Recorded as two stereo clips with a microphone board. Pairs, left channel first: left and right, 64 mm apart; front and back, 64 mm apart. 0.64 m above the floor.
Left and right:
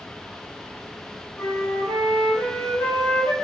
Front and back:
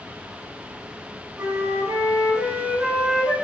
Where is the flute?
135° left, 1.4 m.